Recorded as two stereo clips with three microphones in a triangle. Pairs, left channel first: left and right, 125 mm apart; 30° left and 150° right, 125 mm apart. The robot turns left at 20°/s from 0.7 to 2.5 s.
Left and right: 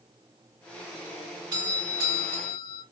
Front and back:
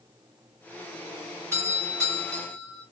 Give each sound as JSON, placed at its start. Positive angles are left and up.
{"t": 1.5, "sound": "a doorbell", "azimuth_deg": -95, "distance_m": 2.5}